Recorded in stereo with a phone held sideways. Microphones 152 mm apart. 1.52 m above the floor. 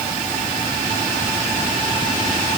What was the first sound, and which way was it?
Only background noise.